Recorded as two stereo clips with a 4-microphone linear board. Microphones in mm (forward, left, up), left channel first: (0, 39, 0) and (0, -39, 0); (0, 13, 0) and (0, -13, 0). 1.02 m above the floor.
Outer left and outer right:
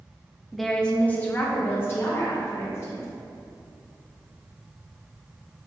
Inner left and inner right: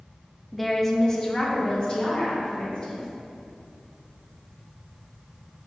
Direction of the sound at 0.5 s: Centre (ahead or behind).